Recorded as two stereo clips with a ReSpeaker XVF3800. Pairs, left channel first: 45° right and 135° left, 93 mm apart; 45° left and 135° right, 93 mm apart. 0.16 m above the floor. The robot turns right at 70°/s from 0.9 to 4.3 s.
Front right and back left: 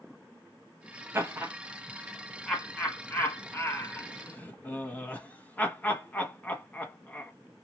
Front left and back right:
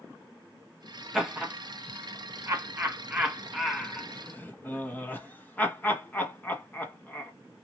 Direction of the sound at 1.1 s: 145° left.